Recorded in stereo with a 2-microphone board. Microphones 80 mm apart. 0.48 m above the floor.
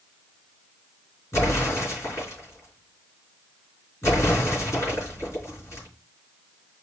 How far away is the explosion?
About 4 m.